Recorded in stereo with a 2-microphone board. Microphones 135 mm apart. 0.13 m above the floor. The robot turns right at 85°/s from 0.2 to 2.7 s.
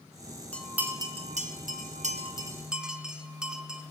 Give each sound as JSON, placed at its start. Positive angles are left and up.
{"t": 0.5, "sound": "a bell", "side_deg": 10, "distance_m": 1.0}